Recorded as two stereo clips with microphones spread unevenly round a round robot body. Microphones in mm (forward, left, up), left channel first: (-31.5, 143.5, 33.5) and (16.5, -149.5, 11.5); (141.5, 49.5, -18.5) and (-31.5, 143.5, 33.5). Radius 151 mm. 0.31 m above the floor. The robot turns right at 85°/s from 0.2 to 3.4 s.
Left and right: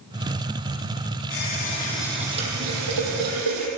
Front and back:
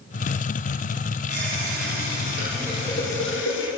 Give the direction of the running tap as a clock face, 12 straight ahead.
8 o'clock.